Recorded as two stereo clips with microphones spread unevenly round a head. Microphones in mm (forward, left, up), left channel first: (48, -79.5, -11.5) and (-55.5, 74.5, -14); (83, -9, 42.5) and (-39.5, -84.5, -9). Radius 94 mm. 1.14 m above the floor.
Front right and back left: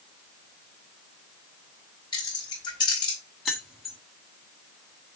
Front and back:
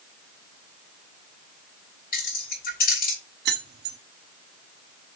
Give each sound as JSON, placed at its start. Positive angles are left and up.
{"t": 2.1, "sound": "keys jangling", "azimuth_deg": 15, "distance_m": 3.5}
{"t": 3.5, "sound": "keys jangling", "azimuth_deg": -145, "distance_m": 1.4}